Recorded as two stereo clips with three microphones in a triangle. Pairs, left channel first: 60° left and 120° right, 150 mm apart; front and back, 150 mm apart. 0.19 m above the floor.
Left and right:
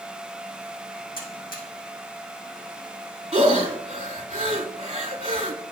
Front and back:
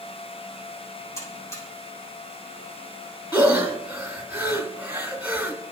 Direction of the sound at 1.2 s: 70° left.